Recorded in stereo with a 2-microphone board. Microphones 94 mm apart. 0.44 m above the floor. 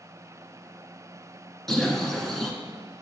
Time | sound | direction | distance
1.7 | a bird | 5° left (ahead or behind) | 1.1 m